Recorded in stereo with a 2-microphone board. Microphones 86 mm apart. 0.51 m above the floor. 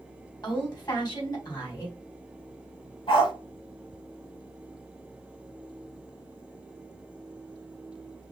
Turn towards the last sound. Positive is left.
turn(degrees=70)  # may be behind; listen again after turning